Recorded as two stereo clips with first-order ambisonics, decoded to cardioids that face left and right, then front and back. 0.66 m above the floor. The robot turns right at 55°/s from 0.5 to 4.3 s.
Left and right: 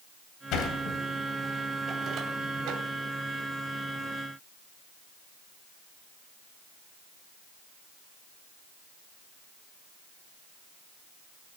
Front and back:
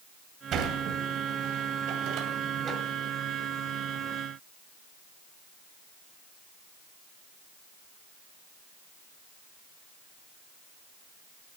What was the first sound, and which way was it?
A sliding door, 125° left.